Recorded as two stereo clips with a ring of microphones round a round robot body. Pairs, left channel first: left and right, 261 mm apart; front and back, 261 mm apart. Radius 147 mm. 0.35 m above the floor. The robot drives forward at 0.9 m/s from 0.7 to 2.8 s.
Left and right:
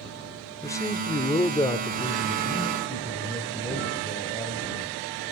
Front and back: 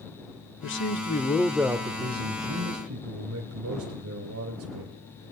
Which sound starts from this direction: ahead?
A man speaking, at 0.6 s.